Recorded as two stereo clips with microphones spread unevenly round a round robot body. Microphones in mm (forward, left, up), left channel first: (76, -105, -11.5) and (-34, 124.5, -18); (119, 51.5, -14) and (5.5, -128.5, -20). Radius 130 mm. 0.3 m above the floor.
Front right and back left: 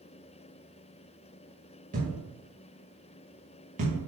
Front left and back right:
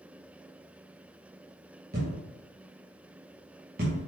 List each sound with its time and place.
1.9 s a thud: straight behind, 4.5 m